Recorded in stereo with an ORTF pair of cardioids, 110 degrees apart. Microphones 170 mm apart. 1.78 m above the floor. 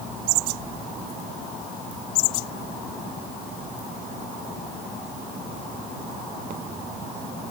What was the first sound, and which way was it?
Only background noise.